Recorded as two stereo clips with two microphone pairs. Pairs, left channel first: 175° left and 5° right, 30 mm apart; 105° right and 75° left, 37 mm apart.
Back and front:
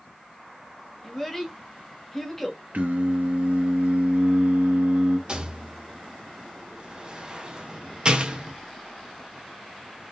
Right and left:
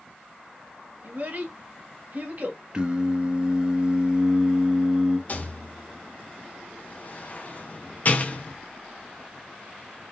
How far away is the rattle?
About 0.7 m.